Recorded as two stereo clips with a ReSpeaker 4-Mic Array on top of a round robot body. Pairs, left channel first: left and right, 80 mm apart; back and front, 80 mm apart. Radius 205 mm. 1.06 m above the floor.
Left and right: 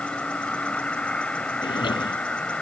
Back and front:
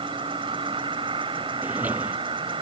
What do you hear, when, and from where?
0.0 s an insect: 15° left
1.6 s a drawer: 70° left